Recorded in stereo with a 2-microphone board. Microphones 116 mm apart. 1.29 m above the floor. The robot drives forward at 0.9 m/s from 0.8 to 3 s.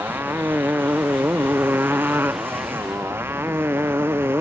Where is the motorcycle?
20° right (ahead or behind).